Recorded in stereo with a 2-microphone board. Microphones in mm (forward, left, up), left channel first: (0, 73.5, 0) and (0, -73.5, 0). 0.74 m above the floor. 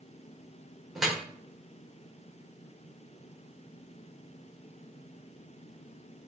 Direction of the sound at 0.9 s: Centre (ahead or behind).